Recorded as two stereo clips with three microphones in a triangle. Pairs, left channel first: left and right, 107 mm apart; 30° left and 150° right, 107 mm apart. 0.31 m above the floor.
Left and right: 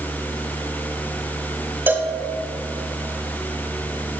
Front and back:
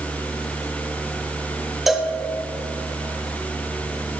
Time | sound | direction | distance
1.9 | a cowbell | 65° right | 1.0 m